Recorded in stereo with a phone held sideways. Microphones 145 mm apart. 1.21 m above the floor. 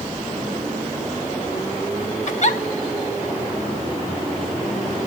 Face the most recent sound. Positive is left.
turn(degrees=55)  # may be behind; listen again after turning